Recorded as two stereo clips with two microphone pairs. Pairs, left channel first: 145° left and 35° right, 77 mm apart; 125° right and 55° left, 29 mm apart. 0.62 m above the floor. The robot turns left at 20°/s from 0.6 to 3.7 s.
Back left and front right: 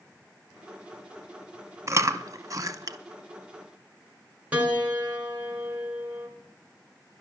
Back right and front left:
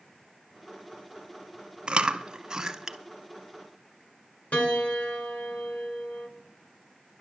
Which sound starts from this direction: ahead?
Chewing, at 1.9 s.